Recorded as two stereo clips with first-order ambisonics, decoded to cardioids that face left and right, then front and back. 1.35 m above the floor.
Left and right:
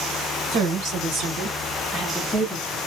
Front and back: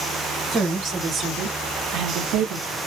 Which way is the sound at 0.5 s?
115° right.